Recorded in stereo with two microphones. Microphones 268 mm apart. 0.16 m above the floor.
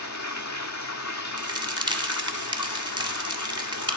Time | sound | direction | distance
0.0 | running water | 85° left | 0.9 m
1.4 | a crack | 15° right (ahead or behind) | 0.9 m